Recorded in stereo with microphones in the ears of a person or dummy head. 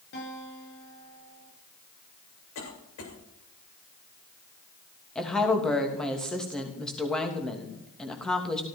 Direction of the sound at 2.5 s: 90° left.